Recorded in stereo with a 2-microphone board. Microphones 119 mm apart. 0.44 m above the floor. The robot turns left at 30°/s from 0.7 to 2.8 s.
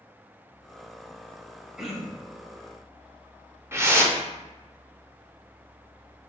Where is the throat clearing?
5° right (ahead or behind), 0.7 m; by 2.4 s 15° left (ahead or behind), 0.7 m.